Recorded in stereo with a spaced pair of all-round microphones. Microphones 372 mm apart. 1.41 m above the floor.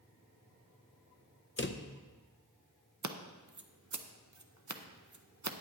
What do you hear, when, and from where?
1.6 s a drawer: 35° left (ahead or behind), 0.5 m
3.0 s scissors: 55° right (ahead or behind), 0.6 m